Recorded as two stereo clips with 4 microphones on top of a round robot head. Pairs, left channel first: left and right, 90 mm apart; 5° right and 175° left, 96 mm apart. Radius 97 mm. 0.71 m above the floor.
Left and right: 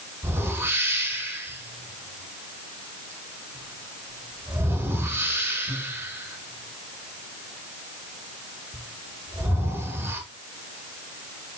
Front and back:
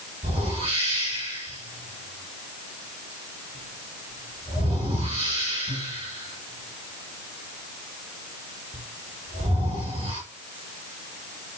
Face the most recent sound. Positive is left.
turn(degrees=-155)